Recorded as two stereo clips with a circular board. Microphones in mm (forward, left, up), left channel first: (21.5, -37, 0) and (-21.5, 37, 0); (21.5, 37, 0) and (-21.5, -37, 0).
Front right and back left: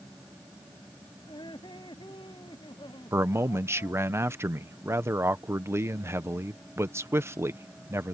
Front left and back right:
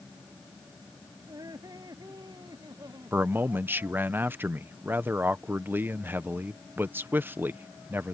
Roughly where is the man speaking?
Behind.